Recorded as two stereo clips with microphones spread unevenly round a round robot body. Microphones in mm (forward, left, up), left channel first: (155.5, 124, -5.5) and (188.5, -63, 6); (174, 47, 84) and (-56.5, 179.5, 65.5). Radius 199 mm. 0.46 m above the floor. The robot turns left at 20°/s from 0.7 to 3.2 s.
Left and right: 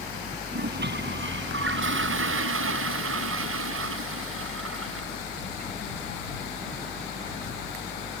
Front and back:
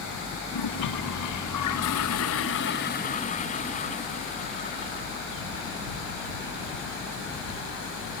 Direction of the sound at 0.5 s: 50° right.